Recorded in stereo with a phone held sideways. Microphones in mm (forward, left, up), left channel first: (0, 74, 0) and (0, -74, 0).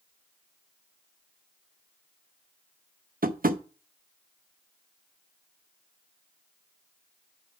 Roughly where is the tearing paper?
I don't hear tearing paper.